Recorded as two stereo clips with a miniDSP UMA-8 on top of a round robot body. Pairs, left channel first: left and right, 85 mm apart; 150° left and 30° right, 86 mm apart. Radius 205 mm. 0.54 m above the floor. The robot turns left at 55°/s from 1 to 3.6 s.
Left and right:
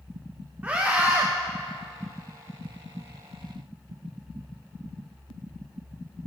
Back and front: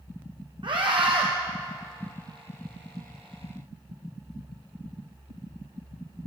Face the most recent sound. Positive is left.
turn(degrees=-160)